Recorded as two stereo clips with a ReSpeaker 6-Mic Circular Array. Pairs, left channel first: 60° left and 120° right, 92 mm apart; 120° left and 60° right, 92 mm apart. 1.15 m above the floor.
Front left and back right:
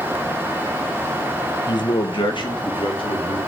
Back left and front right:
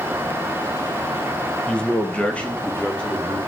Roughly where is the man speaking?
Ahead left.